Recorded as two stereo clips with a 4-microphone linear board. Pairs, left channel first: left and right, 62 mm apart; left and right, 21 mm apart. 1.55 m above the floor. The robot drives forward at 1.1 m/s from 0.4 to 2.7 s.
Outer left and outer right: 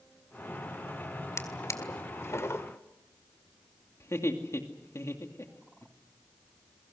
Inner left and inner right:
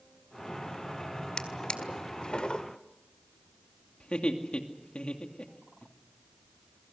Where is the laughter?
50° left (ahead or behind), 2.5 m.